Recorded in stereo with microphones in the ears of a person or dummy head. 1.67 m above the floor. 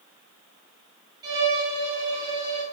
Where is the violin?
20° right (ahead or behind), 1.0 m.